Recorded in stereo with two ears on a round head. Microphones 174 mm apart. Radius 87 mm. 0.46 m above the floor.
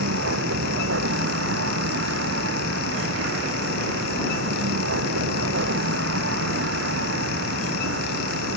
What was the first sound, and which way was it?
A vehicle, 65° right (ahead or behind).